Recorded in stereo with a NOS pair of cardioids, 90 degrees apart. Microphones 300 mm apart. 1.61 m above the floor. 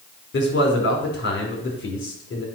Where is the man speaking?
40° left, 4.5 m.